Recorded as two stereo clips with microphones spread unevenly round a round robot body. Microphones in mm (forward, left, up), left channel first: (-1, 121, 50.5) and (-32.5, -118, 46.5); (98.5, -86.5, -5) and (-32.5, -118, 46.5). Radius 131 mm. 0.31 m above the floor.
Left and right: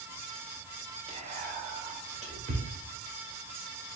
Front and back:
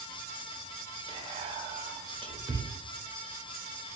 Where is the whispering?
110° right, 0.9 m.